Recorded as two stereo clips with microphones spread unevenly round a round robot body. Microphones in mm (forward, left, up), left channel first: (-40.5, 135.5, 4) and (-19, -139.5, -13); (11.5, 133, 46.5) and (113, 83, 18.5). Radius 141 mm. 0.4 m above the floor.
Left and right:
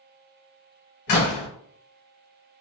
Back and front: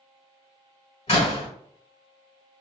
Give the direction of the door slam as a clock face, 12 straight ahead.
8 o'clock.